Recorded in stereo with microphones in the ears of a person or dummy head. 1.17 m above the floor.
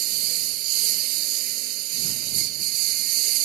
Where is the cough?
No cough in this recording.